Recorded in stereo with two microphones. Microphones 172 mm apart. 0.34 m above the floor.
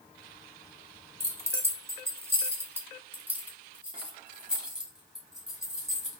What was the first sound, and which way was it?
Keys jangling, 15° right (ahead or behind).